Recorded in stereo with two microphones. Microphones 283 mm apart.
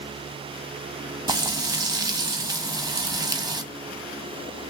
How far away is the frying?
About 0.7 m.